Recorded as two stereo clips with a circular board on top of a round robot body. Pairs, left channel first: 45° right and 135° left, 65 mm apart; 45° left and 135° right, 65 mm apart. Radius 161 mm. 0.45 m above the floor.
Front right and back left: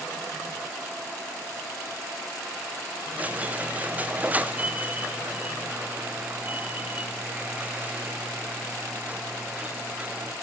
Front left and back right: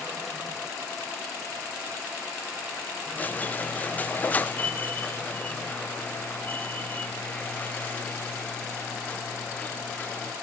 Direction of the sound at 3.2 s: 90° left.